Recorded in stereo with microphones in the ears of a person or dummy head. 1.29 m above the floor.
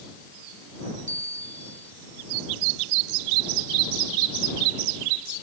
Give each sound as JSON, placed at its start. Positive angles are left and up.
{"t": 1.1, "sound": "a bell", "side_deg": -40}